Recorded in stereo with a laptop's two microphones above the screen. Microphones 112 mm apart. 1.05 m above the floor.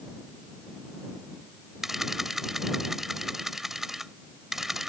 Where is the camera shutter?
5° right (ahead or behind).